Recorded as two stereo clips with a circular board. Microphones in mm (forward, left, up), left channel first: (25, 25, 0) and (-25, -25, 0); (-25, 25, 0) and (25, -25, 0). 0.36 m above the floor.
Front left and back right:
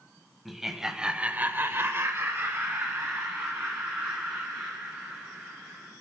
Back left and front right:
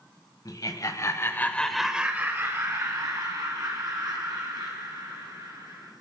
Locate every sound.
0.5 s laughter: 140° left, 1.8 m; by 5.9 s 65° right, 5.5 m